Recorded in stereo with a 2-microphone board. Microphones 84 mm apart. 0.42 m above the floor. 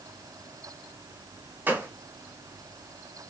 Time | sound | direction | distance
1.7 | a gunshot | 25° right (ahead or behind) | 1.0 m